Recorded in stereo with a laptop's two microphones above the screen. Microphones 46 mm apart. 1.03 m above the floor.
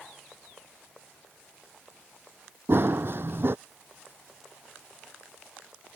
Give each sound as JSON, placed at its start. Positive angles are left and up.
{"t": 2.7, "sound": "running footsteps", "side_deg": -55}